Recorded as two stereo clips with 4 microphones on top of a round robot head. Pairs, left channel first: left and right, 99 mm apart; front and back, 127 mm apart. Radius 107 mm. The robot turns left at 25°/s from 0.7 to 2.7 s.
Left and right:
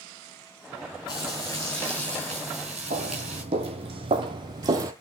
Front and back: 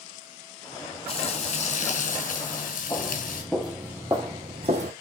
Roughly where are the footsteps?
Right.